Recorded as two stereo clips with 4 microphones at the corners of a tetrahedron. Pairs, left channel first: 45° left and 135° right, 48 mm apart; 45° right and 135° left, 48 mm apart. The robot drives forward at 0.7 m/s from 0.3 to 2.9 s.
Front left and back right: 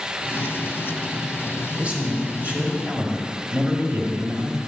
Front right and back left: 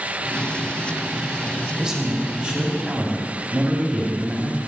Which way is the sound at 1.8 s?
160° right.